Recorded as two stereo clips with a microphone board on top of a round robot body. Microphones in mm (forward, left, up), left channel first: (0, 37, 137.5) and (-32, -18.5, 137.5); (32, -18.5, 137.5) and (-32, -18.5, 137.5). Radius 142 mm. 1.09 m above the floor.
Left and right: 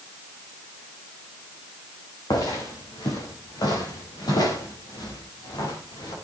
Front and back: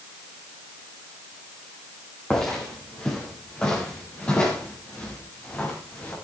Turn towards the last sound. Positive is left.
turn(degrees=65)